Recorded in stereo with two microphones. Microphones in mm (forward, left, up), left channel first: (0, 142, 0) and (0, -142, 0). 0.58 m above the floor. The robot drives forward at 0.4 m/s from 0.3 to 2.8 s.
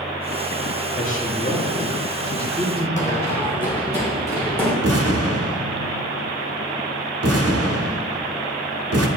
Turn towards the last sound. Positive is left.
turn(degrees=-55)  # may be behind; listen again after turning